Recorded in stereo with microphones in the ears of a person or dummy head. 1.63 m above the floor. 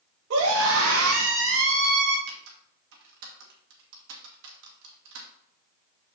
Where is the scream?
70° right (ahead or behind), 1.8 m; by 2.2 s 60° right (ahead or behind), 2 m.